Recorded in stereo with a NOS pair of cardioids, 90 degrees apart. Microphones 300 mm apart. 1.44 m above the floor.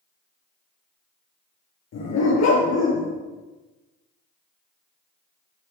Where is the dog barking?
65° left, 6 m; by 3.1 s 70° left, 6 m.